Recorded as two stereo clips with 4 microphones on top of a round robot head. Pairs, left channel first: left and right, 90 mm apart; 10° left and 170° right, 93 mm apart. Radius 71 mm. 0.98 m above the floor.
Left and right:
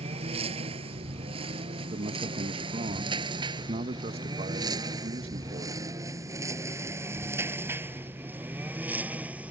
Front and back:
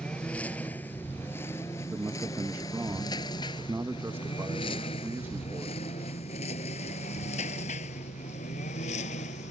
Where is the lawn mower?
75° right; by 9.5 s 15° right.